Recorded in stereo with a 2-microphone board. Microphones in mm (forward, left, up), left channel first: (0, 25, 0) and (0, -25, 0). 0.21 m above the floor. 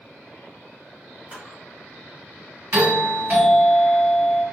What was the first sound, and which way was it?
A camera shutter, 25° right (ahead or behind).